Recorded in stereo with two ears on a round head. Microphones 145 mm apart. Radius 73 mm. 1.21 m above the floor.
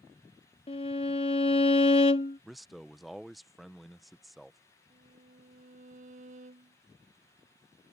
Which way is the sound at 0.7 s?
35° left (ahead or behind).